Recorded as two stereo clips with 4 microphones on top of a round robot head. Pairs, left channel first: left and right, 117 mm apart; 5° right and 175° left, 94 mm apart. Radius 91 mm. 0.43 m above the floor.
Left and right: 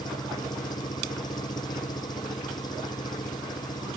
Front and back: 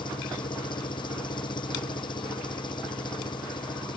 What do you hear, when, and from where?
0.0 s an engine running: 30° left